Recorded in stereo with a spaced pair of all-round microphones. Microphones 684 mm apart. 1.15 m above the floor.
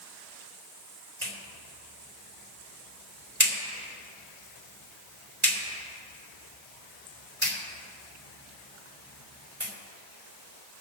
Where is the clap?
45° right (ahead or behind), 3.5 m.